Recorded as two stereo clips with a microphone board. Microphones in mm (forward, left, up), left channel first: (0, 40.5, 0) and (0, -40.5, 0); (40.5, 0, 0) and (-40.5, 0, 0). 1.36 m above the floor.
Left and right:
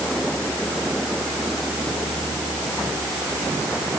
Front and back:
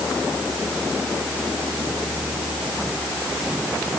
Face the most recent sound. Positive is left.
No sound to turn to.